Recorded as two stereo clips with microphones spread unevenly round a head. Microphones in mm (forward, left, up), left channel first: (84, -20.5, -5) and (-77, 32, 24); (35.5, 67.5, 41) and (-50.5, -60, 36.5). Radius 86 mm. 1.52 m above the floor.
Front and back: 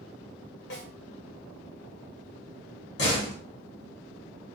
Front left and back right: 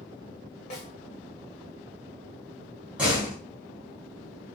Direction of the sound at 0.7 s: 5° left.